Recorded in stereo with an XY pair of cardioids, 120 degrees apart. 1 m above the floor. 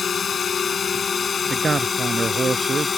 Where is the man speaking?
25° right.